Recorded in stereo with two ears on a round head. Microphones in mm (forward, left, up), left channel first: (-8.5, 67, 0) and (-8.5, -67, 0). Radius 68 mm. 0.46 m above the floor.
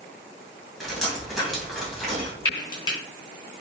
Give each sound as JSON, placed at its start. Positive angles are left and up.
{"t": 0.8, "sound": "dripping", "side_deg": 0, "distance_m": 2.0}
{"t": 2.5, "sound": "frying", "side_deg": 30, "distance_m": 1.8}